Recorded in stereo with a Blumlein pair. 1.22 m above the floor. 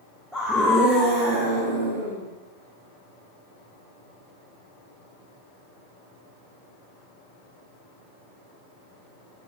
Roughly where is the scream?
Ahead.